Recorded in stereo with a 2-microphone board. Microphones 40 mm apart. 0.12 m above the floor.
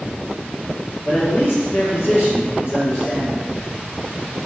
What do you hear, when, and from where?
1.1 s a man speaking: 60° left (ahead or behind), 1.9 m